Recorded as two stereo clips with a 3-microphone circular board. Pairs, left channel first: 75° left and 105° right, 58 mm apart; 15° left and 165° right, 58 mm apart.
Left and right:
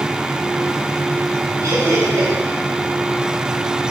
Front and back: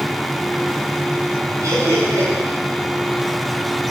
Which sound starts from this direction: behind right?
Laughter, at 1.6 s.